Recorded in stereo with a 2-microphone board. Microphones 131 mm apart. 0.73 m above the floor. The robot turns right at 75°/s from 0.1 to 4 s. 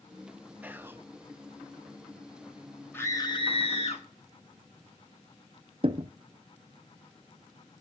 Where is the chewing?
I don't hear chewing.